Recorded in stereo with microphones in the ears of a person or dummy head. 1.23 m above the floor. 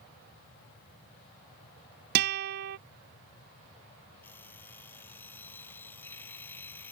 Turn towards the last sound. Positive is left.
turn(degrees=10)  # may be behind; listen again after turning